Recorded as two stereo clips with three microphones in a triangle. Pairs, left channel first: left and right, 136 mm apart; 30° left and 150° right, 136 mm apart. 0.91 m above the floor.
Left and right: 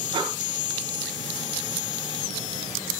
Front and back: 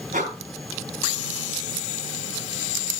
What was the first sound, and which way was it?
Breathing, 145° right.